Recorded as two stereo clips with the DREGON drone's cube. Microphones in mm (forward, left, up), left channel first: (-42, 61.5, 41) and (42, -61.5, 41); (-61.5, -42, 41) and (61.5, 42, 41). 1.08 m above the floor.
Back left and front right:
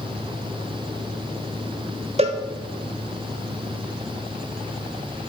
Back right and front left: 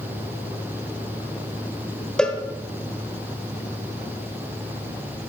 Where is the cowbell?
65° right, 1.0 m.